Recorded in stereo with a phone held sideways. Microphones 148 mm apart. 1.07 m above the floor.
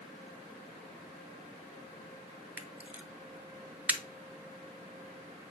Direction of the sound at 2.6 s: 10° right (ahead or behind).